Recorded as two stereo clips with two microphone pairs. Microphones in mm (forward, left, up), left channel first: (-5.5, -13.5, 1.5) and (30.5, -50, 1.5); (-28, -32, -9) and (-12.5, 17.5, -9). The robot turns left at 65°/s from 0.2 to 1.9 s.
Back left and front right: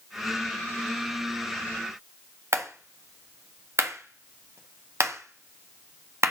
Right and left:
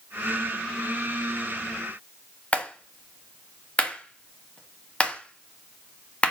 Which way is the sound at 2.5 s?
45° right.